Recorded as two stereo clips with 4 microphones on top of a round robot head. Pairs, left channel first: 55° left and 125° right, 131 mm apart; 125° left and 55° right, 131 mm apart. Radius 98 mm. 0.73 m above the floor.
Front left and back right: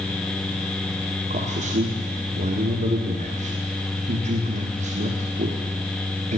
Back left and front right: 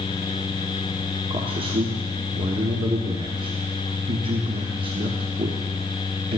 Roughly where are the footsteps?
I don't hear footsteps.